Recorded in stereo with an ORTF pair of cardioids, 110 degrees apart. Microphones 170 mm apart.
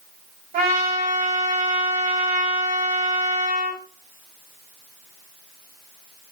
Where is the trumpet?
55° right, 4.5 m.